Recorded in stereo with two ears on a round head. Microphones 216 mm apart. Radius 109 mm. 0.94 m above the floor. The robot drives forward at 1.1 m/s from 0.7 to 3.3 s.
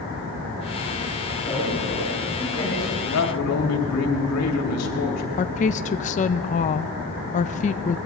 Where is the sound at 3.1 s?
70° left (ahead or behind), 2.5 m; by 5.3 s 75° left (ahead or behind), 2.5 m.